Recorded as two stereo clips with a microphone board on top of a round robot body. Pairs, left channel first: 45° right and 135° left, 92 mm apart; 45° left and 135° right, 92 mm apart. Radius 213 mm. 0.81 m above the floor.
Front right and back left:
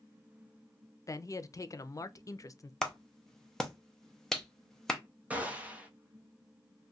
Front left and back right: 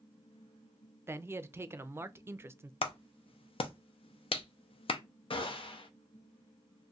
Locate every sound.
1.1 s a man speaking: 80° right, 0.6 m
2.8 s a clap: 40° left, 0.6 m
5.3 s a gunshot: 60° left, 0.7 m